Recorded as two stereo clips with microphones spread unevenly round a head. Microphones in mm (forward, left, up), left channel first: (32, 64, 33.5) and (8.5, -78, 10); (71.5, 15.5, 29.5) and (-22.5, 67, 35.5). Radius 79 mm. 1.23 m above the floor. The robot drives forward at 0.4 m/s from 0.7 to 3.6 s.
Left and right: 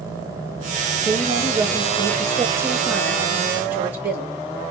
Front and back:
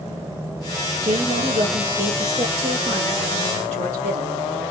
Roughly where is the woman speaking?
Behind.